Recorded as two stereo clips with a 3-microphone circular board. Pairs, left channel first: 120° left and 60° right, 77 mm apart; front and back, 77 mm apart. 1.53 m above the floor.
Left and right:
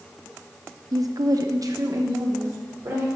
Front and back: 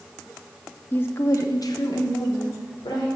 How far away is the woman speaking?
About 0.7 m.